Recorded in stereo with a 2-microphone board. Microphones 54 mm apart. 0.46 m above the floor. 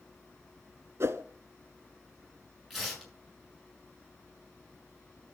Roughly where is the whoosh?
Right.